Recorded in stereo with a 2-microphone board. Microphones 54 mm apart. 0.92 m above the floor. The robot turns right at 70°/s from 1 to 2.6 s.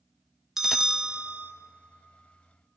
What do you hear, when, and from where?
0.6 s a bell: 170° right, 0.7 m; by 1.5 s 135° right, 0.7 m